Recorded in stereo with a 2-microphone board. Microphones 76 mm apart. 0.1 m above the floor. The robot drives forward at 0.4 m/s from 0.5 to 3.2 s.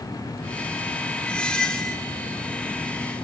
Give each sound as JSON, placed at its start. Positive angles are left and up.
{"t": 1.3, "sound": "a squeak", "side_deg": 15, "distance_m": 0.7}